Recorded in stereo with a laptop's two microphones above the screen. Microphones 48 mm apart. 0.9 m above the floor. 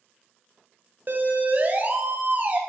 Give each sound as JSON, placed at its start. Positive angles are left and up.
{"t": 1.1, "sound": "a siren", "side_deg": -45, "distance_m": 4.5}